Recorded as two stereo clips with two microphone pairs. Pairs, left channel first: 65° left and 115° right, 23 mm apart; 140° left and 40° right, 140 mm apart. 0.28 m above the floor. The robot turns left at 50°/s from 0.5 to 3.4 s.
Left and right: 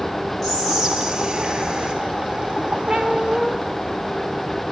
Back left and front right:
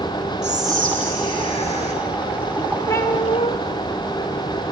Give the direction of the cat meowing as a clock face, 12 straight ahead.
5 o'clock.